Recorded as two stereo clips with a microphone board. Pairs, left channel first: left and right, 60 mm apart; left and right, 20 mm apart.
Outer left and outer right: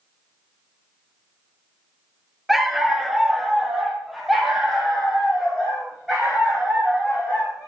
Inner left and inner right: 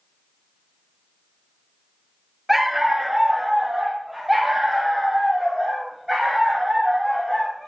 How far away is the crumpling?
I don't hear crumpling.